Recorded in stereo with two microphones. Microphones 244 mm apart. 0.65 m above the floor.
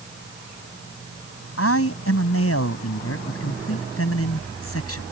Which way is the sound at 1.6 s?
70° left (ahead or behind).